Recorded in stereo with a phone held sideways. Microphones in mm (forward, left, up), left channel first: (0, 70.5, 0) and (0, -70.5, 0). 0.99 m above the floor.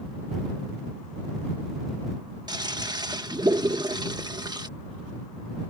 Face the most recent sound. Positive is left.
turn(degrees=-30)  # may be behind; listen again after turning